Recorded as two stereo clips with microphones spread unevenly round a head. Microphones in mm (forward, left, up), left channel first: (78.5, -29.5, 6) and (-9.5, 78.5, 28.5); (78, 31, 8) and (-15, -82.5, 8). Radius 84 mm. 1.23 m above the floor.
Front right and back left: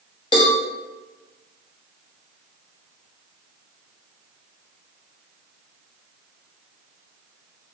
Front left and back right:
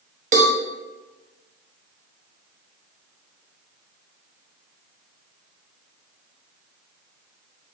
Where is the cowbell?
100° right, 0.8 m.